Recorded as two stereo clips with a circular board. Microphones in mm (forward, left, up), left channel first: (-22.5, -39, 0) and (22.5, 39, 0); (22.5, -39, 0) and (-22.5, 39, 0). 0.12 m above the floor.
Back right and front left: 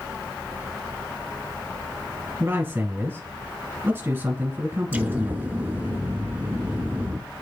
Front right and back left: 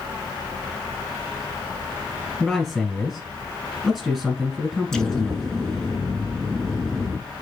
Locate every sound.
2.4 s a man speaking: 35° left, 1.6 m
4.9 s an explosion: 20° left, 0.5 m